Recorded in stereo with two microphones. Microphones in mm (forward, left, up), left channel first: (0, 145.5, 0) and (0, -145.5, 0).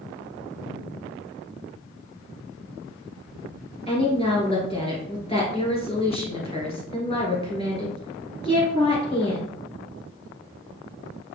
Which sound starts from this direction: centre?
A woman speaking, at 3.9 s.